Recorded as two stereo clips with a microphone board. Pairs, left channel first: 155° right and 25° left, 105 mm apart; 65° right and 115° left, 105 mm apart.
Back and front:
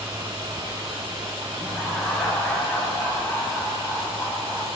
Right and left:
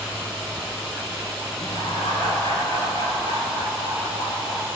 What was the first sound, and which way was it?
Laughter, 75° right.